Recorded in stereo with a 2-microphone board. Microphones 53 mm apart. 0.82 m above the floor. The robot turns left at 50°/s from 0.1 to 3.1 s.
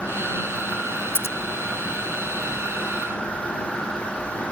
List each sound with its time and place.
1.1 s scissors: 50° left (ahead or behind); by 1.4 s 55° left (ahead or behind)